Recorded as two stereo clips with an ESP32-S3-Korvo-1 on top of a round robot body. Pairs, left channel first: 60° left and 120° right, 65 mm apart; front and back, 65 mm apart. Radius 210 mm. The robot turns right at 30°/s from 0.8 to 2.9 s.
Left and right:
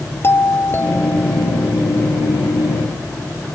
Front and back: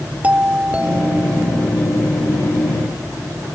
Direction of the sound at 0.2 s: 110° left.